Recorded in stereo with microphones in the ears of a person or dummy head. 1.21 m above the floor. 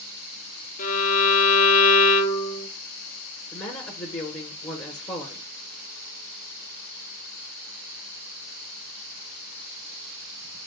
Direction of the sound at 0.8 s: 40° left (ahead or behind).